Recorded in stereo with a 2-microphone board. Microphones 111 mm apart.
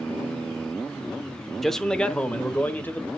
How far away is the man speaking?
About 0.8 m.